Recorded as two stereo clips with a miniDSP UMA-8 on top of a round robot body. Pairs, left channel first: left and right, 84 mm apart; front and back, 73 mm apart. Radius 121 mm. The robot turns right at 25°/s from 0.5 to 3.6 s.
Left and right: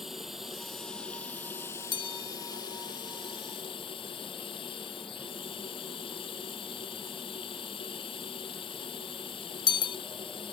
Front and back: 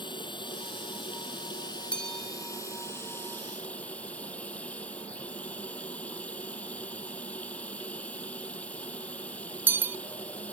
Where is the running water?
5° right; by 10.5 s 75° left.